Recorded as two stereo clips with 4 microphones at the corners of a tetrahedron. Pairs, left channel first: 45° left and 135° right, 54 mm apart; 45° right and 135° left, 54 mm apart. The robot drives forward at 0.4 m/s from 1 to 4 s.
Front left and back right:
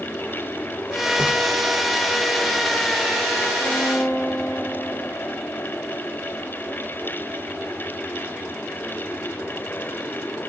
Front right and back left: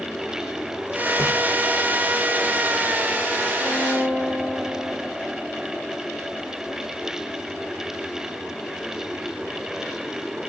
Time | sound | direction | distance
1.2 | a splash | 70° right | 3 m
3.6 | a violin | straight ahead | 6 m